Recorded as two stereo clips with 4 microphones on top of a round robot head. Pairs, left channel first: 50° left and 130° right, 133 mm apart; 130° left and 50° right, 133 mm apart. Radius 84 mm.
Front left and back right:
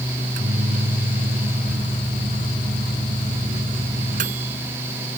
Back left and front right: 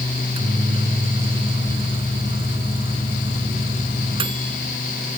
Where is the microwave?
100° right.